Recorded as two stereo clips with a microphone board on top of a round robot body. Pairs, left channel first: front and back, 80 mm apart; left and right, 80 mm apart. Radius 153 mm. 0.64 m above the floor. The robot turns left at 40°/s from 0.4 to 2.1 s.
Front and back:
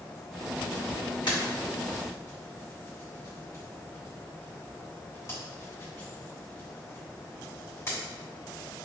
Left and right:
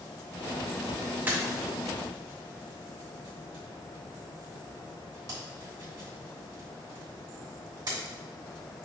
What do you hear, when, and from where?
1.3 s a pop: 20° right, 2 m; by 8.0 s 55° right, 2 m